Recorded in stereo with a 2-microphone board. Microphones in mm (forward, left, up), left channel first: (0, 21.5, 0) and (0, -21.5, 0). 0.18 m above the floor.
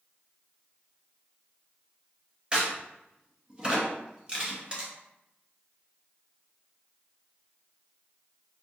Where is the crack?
20° right (ahead or behind), 1.3 m.